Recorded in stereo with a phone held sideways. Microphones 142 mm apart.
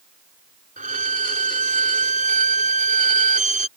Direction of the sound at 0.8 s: 65° right (ahead or behind).